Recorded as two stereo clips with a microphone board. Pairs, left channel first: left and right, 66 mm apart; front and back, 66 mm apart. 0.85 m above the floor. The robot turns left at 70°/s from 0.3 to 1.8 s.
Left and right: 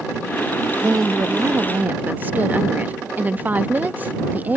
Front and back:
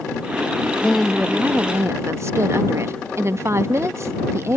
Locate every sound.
0.8 s a woman speaking: 75° right; by 4.6 s 145° right